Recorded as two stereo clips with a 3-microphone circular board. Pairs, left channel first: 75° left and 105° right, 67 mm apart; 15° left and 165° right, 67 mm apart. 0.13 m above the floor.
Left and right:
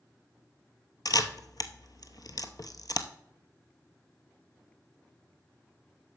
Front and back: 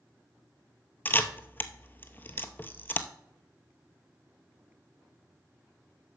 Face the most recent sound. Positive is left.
turn(degrees=75)